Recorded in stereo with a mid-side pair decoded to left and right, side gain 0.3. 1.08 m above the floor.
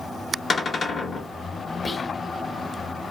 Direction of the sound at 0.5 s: 60° left.